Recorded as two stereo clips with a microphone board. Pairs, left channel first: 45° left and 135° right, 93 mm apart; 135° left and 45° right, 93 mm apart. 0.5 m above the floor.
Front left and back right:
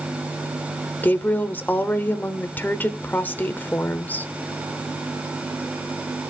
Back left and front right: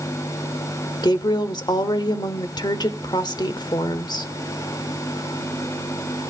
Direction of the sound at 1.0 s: 110° left.